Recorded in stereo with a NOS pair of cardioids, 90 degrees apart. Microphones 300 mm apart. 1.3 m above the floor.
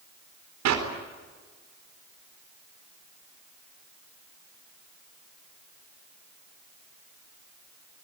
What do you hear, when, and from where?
0.7 s a clap: 65° right, 4 m